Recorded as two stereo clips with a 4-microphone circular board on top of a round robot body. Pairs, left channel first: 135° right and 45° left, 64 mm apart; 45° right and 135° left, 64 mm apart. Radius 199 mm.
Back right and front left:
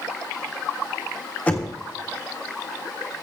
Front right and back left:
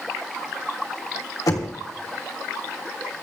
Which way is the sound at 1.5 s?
65° right.